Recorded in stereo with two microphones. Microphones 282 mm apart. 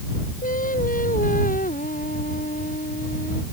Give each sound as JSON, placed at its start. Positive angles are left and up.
{"t": 0.4, "sound": "singing", "side_deg": 30}